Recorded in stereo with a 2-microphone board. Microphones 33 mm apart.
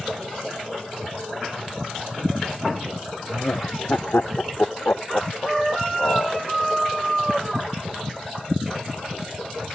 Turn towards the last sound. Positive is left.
turn(degrees=65)  # may be behind; listen again after turning